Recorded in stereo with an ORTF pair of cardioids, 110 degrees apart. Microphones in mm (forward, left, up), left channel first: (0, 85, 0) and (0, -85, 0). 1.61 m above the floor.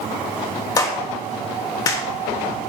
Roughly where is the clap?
Ahead left.